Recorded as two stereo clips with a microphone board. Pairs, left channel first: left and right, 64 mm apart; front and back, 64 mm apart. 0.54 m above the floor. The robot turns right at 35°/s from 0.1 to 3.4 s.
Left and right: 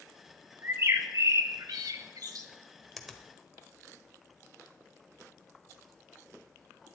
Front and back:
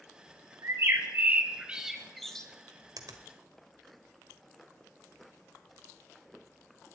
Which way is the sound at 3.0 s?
Straight behind.